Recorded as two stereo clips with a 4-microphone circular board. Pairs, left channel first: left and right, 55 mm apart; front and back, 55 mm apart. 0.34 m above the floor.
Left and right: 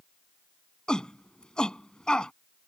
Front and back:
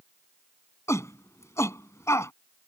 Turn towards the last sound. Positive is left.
turn(degrees=15)